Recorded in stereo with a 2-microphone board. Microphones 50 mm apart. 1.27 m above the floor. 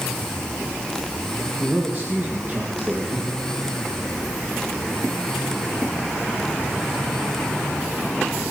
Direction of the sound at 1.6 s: 45° right (ahead or behind).